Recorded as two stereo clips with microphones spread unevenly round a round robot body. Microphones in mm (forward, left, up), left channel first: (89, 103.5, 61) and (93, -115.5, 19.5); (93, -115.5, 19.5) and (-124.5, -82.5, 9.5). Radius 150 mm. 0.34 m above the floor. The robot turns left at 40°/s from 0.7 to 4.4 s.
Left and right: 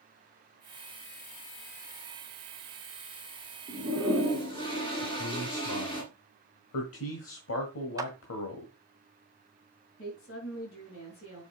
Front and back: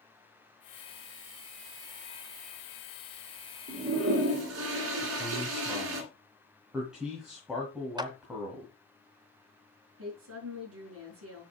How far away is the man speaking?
About 1.7 m.